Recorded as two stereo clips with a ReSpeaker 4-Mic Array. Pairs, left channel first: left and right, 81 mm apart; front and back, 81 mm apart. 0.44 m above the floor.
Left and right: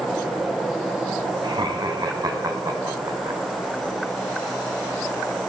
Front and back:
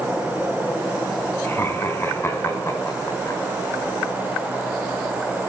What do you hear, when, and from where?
1.4 s laughter: 65° right, 4 m; by 3.4 s 45° right, 3 m